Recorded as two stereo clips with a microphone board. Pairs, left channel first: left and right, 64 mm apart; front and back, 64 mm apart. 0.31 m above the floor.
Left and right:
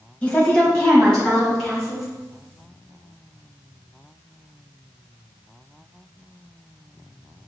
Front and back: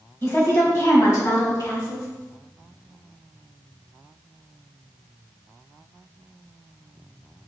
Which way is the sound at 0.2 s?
30° left.